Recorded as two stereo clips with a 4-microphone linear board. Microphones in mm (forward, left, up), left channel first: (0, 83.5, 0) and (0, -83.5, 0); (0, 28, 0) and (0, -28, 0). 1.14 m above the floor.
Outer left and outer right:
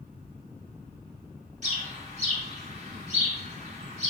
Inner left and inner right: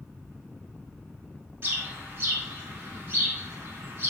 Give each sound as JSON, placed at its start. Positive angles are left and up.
{"t": 1.6, "sound": "a bird", "side_deg": -45, "distance_m": 1.4}